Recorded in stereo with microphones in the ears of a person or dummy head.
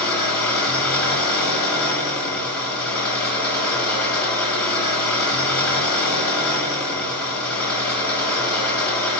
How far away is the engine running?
About 4 m.